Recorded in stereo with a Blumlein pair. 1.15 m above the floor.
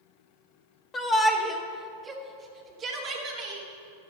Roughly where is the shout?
Ahead.